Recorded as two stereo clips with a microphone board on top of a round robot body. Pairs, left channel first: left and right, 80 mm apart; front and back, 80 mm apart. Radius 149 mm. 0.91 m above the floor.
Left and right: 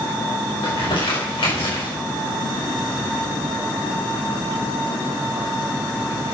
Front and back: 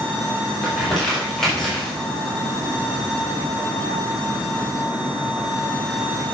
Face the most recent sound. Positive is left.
turn(degrees=85)